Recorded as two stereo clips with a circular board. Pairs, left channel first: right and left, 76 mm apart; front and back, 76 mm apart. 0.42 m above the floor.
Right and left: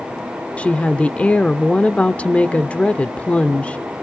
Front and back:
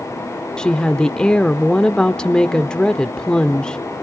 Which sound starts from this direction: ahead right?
A woman speaking, at 0.6 s.